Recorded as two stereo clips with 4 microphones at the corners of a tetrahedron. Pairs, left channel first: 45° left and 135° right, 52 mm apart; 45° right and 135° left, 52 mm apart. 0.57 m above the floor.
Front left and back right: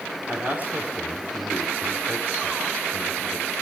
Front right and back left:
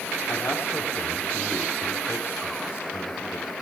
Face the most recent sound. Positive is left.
turn(degrees=-80)